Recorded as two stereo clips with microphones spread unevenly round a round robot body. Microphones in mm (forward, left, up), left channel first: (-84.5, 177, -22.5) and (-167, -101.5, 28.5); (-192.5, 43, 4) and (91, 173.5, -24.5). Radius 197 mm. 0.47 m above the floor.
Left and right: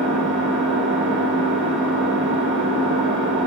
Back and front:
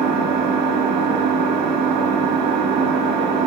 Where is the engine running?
30° right, 0.9 m.